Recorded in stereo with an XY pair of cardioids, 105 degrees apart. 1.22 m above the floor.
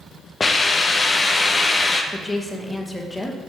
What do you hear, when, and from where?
0.4 s a hiss: 25° left, 0.6 m
2.1 s a woman speaking: 10° left, 1.0 m